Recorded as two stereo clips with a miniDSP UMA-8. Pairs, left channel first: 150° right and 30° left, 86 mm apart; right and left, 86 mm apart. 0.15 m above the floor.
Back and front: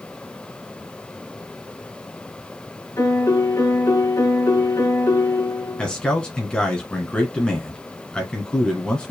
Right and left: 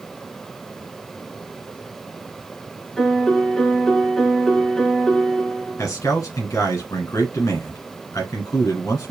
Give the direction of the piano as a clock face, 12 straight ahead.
6 o'clock.